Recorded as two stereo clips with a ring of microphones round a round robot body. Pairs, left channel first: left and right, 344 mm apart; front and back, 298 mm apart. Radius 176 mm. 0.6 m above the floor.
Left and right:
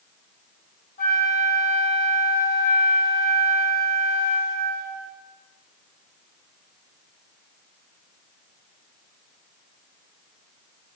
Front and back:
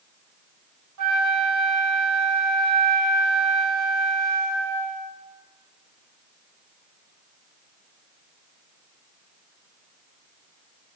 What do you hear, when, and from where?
1.0 s a flute: 155° left, 2.5 m